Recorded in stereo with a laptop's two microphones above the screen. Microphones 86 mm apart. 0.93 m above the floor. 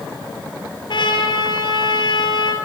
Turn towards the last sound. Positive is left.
turn(degrees=65)  # may be behind; listen again after turning